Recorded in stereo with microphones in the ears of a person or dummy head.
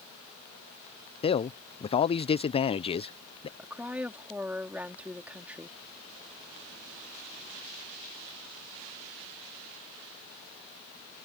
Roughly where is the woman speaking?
Centre.